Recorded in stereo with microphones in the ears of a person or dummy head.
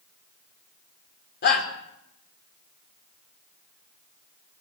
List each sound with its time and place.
1.4 s a shout: 55° left (ahead or behind), 5.5 m